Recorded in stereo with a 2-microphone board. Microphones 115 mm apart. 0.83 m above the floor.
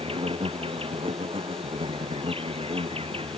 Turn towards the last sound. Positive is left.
turn(degrees=-55)  # may be behind; listen again after turning